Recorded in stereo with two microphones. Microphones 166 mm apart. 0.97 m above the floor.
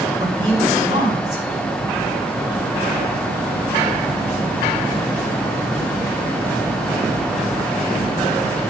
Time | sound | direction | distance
0.2 | a man speaking | 40° right (ahead or behind) | 4.5 m